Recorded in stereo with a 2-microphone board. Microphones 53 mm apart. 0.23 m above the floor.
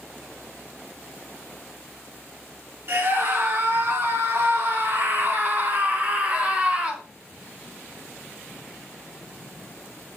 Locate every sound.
2.9 s a scream: 50° right (ahead or behind), 2.5 m; by 7.0 s 20° right (ahead or behind), 1.7 m